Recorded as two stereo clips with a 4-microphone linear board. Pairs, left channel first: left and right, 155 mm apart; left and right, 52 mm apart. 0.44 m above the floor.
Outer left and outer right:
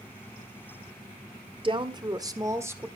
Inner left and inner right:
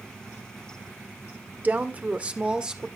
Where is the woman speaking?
35° right (ahead or behind), 1.5 m; by 2.9 s 15° right (ahead or behind), 1.5 m.